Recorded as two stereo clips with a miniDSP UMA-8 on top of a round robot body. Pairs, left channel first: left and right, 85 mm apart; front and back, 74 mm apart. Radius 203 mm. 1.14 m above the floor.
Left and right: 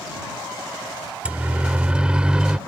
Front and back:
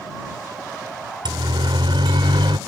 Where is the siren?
165° right; by 2.6 s 175° right.